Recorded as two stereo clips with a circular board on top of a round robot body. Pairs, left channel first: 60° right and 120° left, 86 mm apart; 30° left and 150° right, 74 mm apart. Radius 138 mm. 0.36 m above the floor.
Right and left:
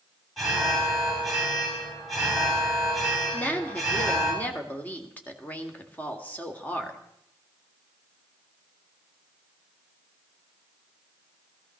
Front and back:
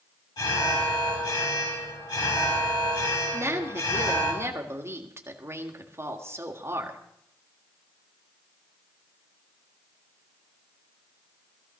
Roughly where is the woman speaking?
Behind right.